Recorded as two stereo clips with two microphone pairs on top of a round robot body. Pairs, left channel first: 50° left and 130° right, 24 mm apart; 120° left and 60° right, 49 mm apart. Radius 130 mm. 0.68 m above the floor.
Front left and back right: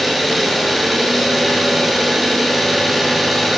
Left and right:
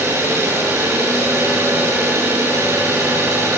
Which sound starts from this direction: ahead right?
An engine running, at 0.0 s.